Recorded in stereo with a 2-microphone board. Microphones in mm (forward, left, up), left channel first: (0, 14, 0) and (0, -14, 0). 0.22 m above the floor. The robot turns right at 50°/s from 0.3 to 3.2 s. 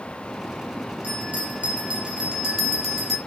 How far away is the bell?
About 4 m.